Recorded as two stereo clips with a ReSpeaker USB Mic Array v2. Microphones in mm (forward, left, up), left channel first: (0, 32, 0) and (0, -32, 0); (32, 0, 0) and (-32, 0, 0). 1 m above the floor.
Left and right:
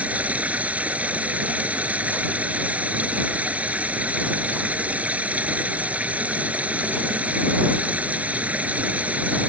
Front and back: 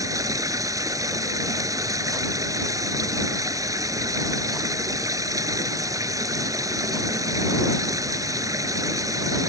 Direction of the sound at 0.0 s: 155° right.